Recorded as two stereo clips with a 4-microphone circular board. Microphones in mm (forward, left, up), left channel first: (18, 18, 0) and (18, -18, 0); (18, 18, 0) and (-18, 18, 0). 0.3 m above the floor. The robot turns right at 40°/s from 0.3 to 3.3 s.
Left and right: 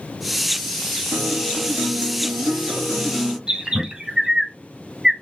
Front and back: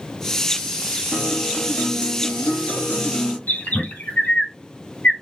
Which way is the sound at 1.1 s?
80° right.